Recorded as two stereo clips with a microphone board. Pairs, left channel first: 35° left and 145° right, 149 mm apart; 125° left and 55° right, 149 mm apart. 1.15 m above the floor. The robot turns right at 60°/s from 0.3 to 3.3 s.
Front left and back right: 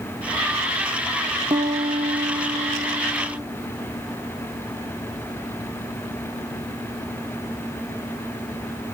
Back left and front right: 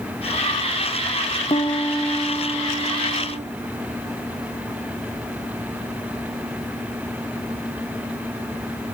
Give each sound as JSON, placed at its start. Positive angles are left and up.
{"t": 1.5, "sound": "a piano", "azimuth_deg": 170, "distance_m": 0.7}